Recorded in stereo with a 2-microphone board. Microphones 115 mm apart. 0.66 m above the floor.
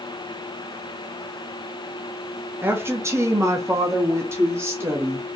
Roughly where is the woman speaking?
Centre.